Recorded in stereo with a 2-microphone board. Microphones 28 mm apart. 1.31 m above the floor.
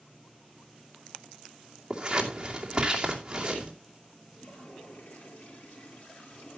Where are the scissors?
20° right (ahead or behind), 2.5 m.